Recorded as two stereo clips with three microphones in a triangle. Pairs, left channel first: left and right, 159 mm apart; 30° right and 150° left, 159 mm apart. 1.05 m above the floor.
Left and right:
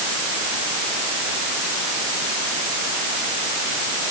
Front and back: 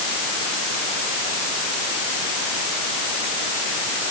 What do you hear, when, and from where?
Only background noise.